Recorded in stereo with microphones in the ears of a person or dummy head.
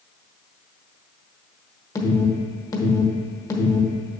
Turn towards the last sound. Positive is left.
turn(degrees=15)  # may be behind; listen again after turning